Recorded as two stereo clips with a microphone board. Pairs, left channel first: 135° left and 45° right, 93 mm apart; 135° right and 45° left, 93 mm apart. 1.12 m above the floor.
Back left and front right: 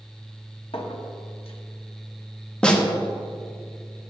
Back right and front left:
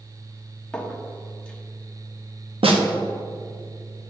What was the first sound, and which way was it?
A clink, 145° left.